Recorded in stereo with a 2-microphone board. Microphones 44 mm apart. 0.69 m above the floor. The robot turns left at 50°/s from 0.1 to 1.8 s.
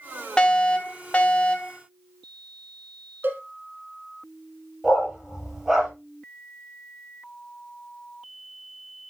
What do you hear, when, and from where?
0.4 s a fire alarm: 20° left (ahead or behind), 1.6 m; by 1.8 s 25° left (ahead or behind), 1.6 m
3.2 s a cowbell: 50° right (ahead or behind), 1.4 m
4.8 s a dog barking: 10° right (ahead or behind), 6.5 m